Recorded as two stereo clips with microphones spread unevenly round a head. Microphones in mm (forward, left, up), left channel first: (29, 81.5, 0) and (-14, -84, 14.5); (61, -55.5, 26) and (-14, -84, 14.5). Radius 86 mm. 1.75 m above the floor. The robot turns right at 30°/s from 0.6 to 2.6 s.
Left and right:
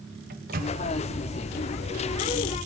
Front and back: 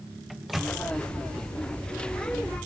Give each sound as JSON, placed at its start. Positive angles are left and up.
{"t": 0.3, "sound": "a microwave", "azimuth_deg": -70, "distance_m": 1.2}